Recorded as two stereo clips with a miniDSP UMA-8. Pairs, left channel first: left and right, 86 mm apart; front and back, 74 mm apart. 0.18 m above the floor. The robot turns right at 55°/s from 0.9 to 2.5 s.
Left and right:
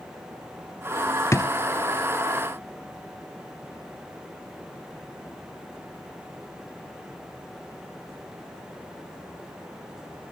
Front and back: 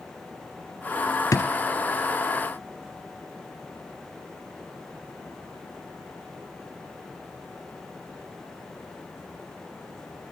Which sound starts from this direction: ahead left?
A drawer, at 1.3 s.